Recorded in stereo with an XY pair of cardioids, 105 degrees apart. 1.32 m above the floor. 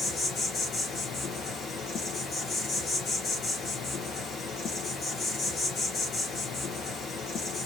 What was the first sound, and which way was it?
An insect, 65° left.